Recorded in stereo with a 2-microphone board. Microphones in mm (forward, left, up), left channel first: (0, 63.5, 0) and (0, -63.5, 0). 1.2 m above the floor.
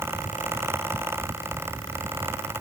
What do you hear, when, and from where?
Only background noise.